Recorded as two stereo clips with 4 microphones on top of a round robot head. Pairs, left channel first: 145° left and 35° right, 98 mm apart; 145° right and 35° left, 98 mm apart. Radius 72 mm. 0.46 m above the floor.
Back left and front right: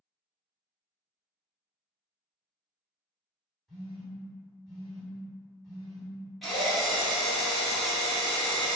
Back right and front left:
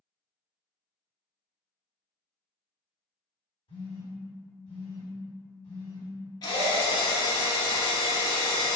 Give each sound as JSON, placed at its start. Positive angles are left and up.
{"t": 3.7, "sound": "a phone buzzing", "azimuth_deg": -130, "distance_m": 1.8}
{"t": 6.4, "sound": "a drill", "azimuth_deg": -125, "distance_m": 1.0}